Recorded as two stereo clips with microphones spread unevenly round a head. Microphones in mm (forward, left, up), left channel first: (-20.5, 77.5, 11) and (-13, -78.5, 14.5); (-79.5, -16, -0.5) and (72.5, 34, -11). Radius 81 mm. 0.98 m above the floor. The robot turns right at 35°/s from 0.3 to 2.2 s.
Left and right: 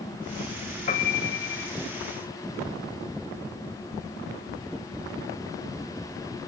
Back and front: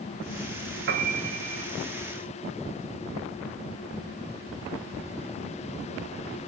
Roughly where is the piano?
Ahead left.